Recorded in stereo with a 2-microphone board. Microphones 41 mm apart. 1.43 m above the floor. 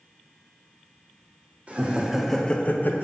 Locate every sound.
1.7 s laughter: 35° right (ahead or behind), 0.8 m; by 3.0 s 60° left (ahead or behind), 0.8 m